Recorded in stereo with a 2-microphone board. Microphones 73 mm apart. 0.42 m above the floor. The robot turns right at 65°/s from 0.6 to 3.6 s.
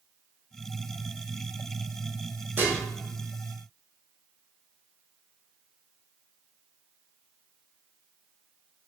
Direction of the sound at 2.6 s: 25° right (ahead or behind).